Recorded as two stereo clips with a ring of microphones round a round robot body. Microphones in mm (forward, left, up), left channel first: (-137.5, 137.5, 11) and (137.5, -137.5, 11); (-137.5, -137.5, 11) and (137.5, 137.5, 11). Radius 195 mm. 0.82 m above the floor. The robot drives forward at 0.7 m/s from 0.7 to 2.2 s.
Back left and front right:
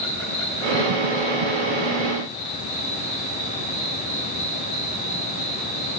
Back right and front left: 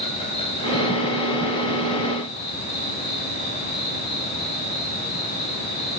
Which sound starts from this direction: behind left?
An insect, at 0.0 s.